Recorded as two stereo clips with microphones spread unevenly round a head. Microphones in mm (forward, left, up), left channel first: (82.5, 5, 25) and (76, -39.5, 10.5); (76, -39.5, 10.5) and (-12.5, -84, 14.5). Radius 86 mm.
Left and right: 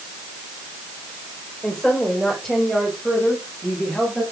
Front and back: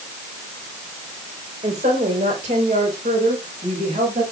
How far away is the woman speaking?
About 4.5 m.